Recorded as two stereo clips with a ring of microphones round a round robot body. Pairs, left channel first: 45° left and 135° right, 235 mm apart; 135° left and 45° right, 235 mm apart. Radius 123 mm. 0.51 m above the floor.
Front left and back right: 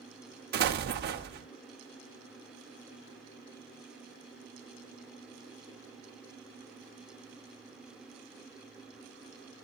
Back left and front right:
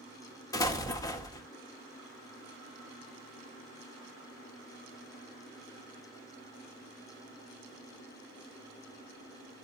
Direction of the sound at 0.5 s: 155° right.